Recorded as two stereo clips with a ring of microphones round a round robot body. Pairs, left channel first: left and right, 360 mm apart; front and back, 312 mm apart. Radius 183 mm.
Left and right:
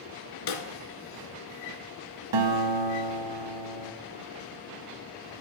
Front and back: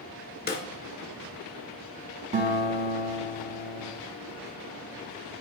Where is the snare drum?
60° left, 2 m.